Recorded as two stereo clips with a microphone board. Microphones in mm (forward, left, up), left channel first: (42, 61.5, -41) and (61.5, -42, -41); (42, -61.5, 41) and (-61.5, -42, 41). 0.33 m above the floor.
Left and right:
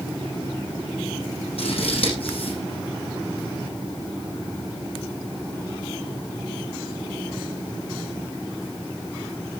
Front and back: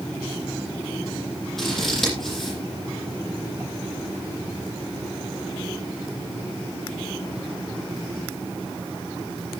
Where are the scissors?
75° left, 8.5 m.